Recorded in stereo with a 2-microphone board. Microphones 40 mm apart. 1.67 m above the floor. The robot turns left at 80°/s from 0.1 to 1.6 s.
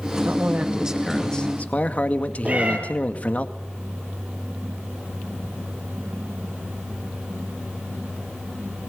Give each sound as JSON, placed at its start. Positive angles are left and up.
{"t": 0.2, "sound": "a man speaking", "azimuth_deg": -115, "distance_m": 2.0}
{"t": 2.5, "sound": "a cat meowing", "side_deg": -40, "distance_m": 7.0}